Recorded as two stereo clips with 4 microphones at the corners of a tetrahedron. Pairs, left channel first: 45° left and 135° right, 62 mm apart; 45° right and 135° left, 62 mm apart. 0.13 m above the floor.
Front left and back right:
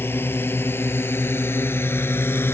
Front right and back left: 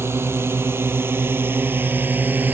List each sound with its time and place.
0.0 s a drone: 95° left; by 2.5 s 85° left